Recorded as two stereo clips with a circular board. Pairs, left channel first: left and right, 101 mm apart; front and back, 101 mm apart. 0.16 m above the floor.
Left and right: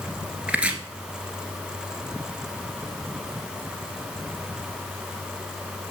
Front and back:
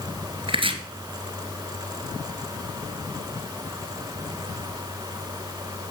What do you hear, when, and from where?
0.5 s chopping: 165° right, 1.5 m